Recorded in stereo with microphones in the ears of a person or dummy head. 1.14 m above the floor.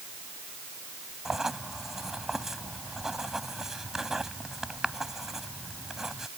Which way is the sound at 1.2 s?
Centre (ahead or behind).